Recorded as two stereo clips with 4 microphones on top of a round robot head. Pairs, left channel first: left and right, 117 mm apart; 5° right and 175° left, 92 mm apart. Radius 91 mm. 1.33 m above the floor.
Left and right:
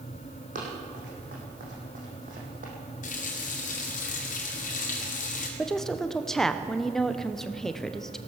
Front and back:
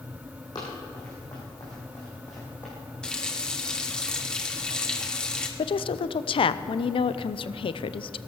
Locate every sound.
0.6 s running footsteps: 65° right, 4.5 m; by 2.7 s 80° right, 3.5 m
3.0 s a running tap: 75° left, 2 m
5.6 s a woman speaking: 5° left, 0.7 m